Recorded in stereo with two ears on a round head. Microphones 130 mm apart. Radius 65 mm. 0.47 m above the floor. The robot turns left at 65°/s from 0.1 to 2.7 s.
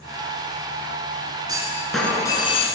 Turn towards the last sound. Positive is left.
turn(degrees=130)